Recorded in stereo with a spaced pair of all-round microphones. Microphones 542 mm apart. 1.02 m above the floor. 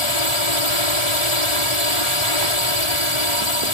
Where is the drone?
60° left (ahead or behind).